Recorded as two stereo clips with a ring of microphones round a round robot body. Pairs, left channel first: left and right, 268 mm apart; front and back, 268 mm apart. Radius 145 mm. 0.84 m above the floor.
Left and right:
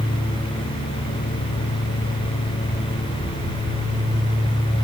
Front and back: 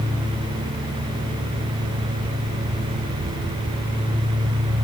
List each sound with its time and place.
Only background noise.